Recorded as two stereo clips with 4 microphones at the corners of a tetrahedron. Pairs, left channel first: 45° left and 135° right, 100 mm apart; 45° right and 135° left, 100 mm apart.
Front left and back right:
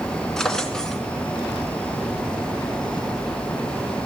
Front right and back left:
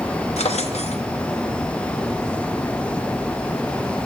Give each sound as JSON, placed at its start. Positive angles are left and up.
{"t": 0.4, "sound": "a drawer", "azimuth_deg": -40, "distance_m": 1.0}